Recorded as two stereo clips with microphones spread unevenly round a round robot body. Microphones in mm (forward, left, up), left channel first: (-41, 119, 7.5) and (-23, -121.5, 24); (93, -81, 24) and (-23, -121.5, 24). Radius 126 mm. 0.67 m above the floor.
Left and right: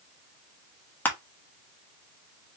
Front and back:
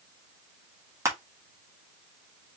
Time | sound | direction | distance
1.1 | crushing | 160° left | 1.2 m